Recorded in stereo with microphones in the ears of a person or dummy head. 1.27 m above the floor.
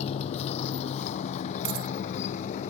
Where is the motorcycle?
30° left (ahead or behind); by 2.7 s 35° left (ahead or behind).